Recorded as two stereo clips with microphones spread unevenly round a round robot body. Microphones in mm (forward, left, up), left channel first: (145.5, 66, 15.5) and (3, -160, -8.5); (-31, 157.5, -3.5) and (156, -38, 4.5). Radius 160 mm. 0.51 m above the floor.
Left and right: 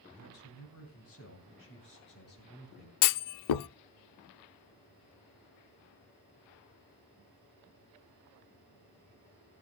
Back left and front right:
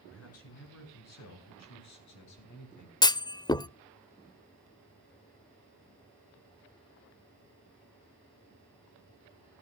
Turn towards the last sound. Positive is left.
turn(degrees=55)